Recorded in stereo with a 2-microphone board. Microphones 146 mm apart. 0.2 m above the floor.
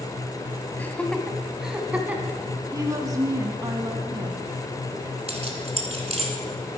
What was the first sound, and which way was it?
Laughter, 15° left (ahead or behind).